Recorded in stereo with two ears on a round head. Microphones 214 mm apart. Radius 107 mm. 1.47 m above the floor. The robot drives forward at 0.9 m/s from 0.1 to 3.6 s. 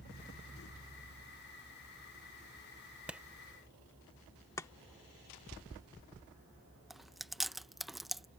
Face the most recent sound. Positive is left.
turn(degrees=0)  # may be behind; listen again after turning